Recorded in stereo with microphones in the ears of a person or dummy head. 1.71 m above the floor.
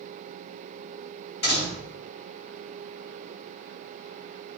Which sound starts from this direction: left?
A door slam, at 1.4 s.